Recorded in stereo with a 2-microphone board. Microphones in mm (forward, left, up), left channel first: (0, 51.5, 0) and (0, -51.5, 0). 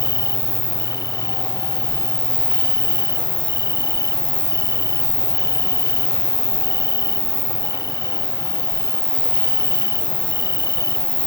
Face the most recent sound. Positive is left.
turn(degrees=-40)  # may be behind; listen again after turning